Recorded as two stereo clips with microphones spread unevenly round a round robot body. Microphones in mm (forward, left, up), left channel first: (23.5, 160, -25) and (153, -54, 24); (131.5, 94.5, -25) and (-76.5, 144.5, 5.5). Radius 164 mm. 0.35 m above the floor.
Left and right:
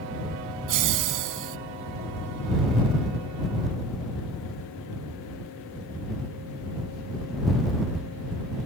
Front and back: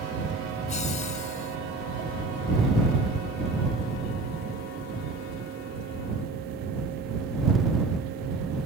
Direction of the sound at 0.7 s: 80° right.